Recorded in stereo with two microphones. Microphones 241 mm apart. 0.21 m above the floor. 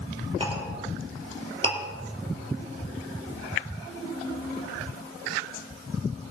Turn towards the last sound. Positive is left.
turn(degrees=-20)  # may be behind; listen again after turning